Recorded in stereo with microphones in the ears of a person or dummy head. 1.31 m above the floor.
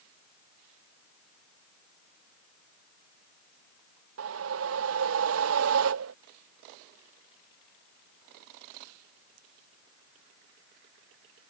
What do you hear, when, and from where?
4.2 s a whoosh: 75° right (ahead or behind)